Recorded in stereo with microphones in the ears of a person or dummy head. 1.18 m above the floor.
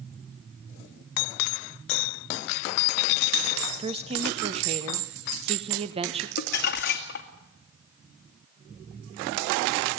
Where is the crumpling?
60° left (ahead or behind), 2 m.